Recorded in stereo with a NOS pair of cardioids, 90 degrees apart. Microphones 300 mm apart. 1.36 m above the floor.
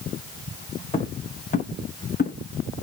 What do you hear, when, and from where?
0.9 s footsteps: 20° left, 5 m; by 2.4 s 35° left, 5.5 m